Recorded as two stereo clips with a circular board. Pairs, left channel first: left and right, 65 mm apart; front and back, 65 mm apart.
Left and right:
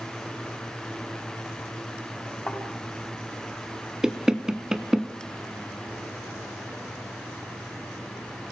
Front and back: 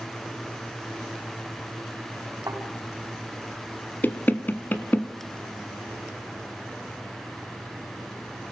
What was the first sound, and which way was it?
A thud, 150° left.